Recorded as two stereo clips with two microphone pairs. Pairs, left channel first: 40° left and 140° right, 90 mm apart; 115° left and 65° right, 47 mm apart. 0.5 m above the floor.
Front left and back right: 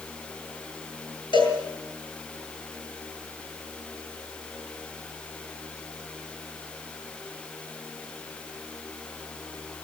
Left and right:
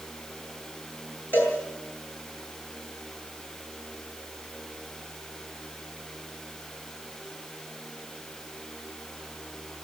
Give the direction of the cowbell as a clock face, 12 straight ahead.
10 o'clock.